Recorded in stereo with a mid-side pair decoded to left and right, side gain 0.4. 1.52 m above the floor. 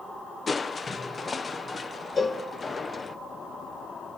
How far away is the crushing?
About 1.1 m.